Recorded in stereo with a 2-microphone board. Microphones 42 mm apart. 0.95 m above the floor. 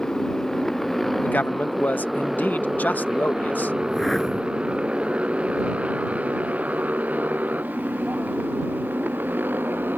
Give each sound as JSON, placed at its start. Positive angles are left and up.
{"t": 0.0, "sound": "a motorcycle", "side_deg": 10}
{"t": 1.2, "sound": "a man speaking", "side_deg": 45}
{"t": 3.8, "sound": "a whoosh", "side_deg": 5}